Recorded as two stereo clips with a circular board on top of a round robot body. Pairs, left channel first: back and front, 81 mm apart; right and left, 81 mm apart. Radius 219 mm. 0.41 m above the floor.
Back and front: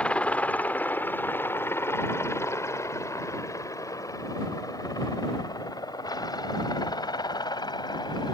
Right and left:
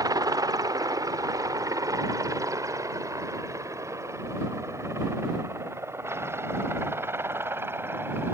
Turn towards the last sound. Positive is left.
turn(degrees=150)